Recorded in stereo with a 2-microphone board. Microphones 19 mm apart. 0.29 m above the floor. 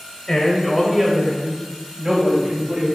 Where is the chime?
No chime in this recording.